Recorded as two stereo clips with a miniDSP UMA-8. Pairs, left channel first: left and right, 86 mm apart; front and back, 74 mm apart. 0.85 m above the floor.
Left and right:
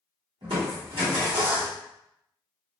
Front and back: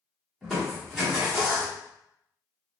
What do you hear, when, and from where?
0.4 s crushing: 90° right, 1.4 m